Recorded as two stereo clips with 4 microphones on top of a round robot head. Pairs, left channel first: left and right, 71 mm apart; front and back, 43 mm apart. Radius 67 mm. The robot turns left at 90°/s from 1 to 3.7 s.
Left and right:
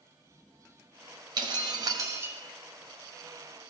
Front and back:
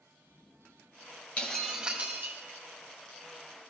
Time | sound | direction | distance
1.4 | breaking glass | 65° right | 1.6 m